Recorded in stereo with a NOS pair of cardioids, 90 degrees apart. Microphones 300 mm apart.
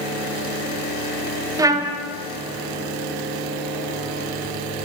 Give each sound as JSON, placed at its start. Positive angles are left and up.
{"t": 1.6, "sound": "a trumpet", "azimuth_deg": -10, "distance_m": 0.7}